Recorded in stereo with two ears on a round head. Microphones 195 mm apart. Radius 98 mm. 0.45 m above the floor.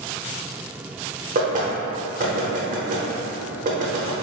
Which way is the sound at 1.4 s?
40° right (ahead or behind).